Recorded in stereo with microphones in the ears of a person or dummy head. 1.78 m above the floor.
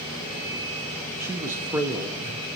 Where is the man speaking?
15° right (ahead or behind), 0.9 m.